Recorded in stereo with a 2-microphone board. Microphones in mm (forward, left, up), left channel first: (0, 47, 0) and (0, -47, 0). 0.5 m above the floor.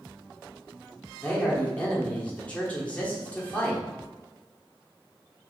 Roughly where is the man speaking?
Centre.